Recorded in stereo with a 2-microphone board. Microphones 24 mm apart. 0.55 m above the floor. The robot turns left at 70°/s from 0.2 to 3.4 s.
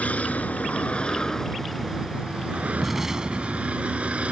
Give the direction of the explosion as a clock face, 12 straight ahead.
12 o'clock.